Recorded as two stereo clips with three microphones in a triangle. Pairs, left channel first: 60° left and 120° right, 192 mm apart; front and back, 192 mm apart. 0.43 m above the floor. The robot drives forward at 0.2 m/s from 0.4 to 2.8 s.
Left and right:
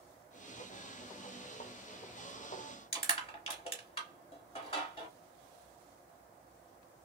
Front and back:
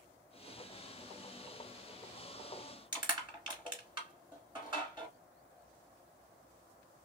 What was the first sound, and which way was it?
Crushing, 115° left.